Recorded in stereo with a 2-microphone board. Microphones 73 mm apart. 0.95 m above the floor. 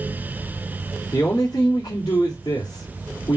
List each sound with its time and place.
1.1 s a man speaking: 80° left, 1.9 m